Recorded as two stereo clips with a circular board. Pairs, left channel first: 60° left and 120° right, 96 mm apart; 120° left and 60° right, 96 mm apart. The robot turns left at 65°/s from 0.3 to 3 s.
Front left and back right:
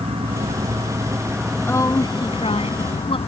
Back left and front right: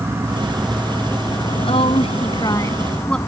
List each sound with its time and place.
0.0 s an insect: 125° right; by 3.3 s 60° left
1.6 s a woman speaking: 130° left; by 3.2 s 40° left